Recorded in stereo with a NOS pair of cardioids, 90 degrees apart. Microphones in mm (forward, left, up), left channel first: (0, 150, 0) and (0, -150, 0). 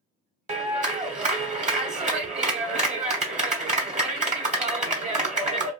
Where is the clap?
25° right, 1.2 m.